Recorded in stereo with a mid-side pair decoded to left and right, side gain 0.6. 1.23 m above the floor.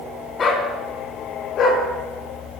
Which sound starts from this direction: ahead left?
A dog barking, at 0.4 s.